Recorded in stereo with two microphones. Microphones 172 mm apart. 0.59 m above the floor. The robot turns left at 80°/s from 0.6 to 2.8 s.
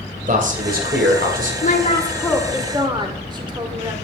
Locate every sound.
0.3 s a man speaking: 55° right, 2.5 m; by 1.5 s 130° right, 2.5 m
1.6 s a woman speaking: 65° left, 1.8 m; by 3.9 s 30° right, 1.8 m